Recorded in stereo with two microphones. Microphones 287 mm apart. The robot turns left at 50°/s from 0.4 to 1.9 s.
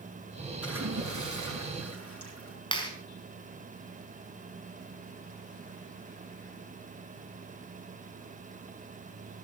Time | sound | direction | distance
0.6 | a splash | 55° right | 7.5 m
2.7 | a clap | 15° left (ahead or behind) | 4.5 m